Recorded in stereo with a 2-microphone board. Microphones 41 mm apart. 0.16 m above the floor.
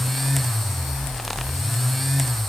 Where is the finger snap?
No finger snap in this recording.